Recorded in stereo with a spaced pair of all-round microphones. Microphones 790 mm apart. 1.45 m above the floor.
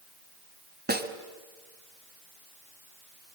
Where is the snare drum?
10° right (ahead or behind), 1.5 m.